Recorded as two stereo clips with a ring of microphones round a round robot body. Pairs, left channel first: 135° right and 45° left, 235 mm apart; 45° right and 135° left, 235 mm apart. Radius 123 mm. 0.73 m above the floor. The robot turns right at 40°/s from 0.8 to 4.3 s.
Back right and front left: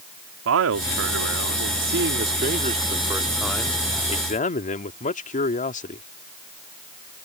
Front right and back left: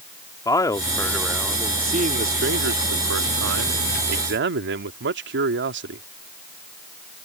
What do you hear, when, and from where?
0.5 s a man speaking: 30° left; by 6.0 s 170° left